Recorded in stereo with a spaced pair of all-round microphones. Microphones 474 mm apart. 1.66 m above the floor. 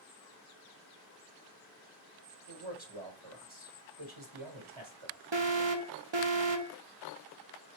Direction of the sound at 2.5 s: 75° right (ahead or behind).